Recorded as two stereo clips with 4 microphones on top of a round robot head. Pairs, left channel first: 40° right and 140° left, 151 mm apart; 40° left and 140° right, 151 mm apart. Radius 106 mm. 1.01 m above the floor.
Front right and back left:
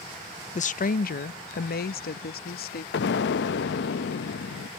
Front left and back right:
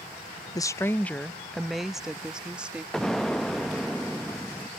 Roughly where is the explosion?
Ahead right.